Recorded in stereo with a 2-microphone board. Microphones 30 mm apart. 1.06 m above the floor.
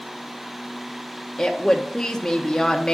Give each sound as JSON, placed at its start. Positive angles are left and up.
{"t": 1.4, "sound": "a woman speaking", "side_deg": 15, "distance_m": 0.6}